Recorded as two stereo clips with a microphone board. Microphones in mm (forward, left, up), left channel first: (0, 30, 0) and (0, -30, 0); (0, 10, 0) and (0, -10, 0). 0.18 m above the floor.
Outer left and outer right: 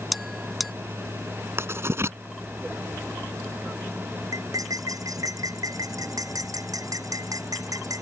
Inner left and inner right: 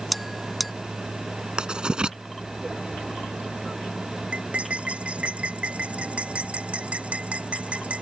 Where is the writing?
50° right (ahead or behind).